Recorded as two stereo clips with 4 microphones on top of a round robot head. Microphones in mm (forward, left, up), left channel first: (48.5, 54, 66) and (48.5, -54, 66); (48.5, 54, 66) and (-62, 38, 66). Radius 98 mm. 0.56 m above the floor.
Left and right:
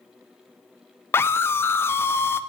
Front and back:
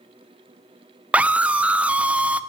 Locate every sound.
1.1 s a scream: 125° left, 0.7 m